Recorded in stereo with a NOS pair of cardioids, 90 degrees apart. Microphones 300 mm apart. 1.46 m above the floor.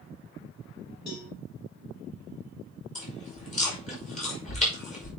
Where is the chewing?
25° left, 5.5 m.